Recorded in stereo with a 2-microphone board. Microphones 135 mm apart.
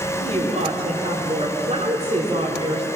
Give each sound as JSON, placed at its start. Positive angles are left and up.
{"t": 0.2, "sound": "a woman speaking", "side_deg": -45, "distance_m": 5.0}